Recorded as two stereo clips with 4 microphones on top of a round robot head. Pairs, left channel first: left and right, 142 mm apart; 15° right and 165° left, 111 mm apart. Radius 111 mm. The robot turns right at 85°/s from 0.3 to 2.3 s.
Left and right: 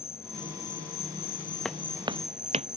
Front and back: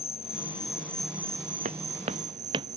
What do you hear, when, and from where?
0.0 s an insect: 15° left; by 2.8 s 175° right
1.6 s footsteps: 175° left; by 2.7 s 135° right